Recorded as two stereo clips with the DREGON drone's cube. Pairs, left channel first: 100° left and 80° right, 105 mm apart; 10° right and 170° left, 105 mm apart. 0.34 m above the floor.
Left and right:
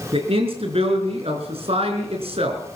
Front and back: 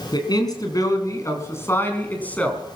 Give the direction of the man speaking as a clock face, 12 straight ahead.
2 o'clock.